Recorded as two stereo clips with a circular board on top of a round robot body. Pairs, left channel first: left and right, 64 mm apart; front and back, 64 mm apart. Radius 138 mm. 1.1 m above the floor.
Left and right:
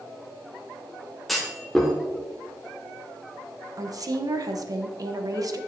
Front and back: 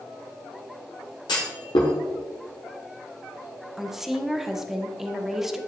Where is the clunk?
Straight ahead, 1.0 m.